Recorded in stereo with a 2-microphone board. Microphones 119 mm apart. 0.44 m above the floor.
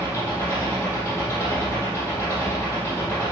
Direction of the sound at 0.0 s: 25° left (ahead or behind).